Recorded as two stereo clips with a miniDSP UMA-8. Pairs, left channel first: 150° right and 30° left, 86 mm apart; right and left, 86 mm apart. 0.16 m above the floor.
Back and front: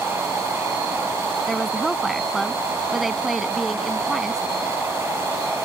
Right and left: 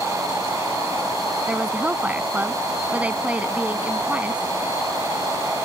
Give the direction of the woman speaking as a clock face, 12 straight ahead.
8 o'clock.